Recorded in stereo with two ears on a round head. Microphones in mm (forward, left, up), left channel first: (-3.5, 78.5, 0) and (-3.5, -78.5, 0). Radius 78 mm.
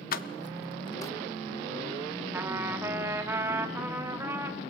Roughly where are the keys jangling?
Left.